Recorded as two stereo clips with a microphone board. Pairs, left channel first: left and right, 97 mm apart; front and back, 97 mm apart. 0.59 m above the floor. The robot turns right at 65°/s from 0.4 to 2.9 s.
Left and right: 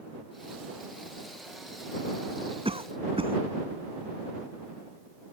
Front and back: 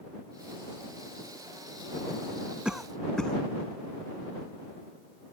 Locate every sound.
2.6 s a cough: 100° right; by 3.4 s 85° right